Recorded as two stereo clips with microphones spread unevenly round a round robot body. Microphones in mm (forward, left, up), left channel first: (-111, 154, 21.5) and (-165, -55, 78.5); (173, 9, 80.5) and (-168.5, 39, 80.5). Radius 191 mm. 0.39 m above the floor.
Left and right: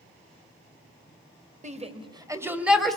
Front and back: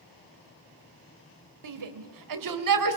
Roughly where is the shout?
Behind.